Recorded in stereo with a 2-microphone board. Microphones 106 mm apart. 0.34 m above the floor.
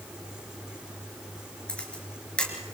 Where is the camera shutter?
10° left (ahead or behind), 4 m.